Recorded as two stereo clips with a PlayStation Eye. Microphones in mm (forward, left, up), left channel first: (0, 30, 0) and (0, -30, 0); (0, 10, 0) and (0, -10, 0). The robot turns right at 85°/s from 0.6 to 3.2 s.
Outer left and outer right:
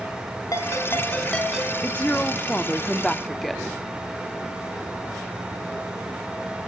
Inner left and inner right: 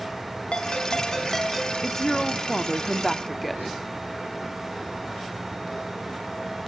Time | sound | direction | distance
0.5 | a ringtone | 105° left | 3 m
1.8 | a woman speaking | 15° left (ahead or behind) | 0.8 m